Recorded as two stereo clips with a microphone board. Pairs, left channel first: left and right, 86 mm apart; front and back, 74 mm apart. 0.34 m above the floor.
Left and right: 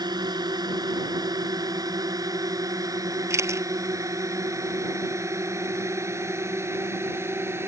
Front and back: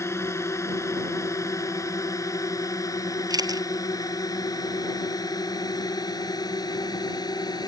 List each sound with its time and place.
0.0 s a drone: 55° right; by 7.7 s 30° right
3.3 s a camera shutter: 150° right